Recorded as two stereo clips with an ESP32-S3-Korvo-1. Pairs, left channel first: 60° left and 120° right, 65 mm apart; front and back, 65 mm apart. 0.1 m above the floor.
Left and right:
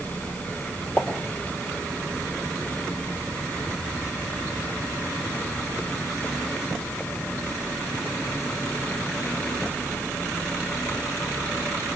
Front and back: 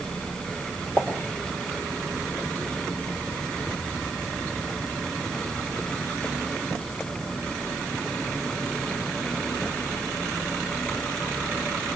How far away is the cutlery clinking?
No cutlery clinking in this recording.